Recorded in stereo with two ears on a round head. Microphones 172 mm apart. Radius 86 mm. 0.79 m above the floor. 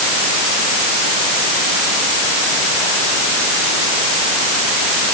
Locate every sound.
Only background noise.